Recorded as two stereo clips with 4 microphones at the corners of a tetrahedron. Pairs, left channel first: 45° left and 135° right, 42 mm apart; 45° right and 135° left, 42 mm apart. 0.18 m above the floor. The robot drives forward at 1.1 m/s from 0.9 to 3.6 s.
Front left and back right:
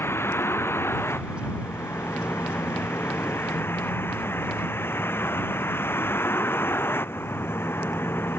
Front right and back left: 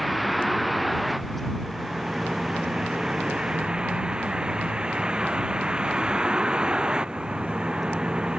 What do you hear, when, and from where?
0.0 s a vehicle: 45° left; by 8.4 s 65° left